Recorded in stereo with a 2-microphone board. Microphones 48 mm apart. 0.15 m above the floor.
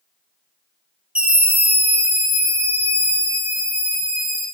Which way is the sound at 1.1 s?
25° right (ahead or behind).